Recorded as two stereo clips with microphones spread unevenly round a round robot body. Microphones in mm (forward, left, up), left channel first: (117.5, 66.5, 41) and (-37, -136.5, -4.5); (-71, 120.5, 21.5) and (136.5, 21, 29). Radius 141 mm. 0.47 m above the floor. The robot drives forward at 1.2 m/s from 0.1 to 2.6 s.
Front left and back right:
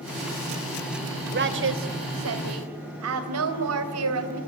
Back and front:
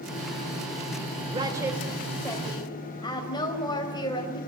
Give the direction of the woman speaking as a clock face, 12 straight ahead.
3 o'clock.